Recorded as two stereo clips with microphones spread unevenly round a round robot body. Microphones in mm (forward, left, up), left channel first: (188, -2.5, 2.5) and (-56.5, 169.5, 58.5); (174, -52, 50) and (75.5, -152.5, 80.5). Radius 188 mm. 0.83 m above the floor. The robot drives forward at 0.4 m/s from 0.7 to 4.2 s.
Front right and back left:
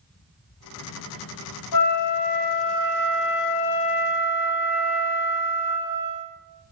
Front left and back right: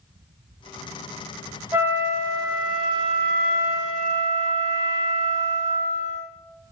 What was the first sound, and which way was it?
A flute, 65° right.